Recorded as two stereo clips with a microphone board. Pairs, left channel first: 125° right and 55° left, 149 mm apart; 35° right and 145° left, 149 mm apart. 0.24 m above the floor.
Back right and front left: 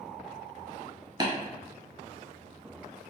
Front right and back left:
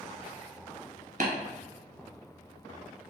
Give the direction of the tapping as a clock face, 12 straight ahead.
8 o'clock.